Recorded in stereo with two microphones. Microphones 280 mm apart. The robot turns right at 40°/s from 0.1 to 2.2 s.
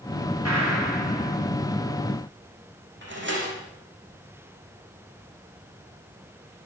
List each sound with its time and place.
0.5 s a gunshot: 110° right, 9 m; by 1.4 s 75° right, 9 m
3.0 s a door slam: 45° right (ahead or behind), 7 m